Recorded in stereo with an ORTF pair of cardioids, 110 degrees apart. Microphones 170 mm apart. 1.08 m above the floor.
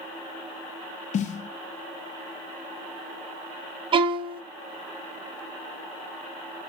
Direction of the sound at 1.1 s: 50° left.